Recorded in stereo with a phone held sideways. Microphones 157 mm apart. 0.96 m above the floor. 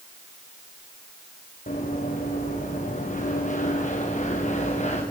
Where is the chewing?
No chewing in this recording.